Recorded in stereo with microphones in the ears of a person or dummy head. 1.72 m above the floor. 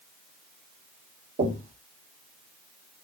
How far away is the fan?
No fan in this recording.